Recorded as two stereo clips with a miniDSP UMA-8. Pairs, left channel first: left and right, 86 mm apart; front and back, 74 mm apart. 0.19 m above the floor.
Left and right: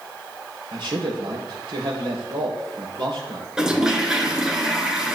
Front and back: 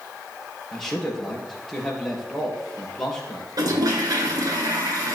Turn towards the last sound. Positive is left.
turn(degrees=-170)